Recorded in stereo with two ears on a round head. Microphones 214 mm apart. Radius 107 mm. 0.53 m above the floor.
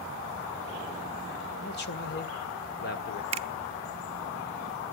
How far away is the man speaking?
About 1.5 m.